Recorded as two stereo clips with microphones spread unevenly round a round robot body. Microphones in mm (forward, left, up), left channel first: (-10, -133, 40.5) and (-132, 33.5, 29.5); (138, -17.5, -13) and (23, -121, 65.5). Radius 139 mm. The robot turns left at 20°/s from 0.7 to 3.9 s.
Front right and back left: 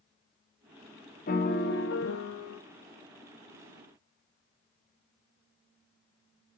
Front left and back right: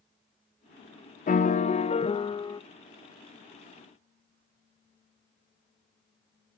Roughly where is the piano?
Ahead.